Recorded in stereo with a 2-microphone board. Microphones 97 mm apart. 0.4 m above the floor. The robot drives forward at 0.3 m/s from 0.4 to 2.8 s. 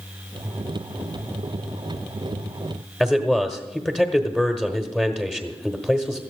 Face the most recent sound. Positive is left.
turn(degrees=10)  # may be behind; listen again after turning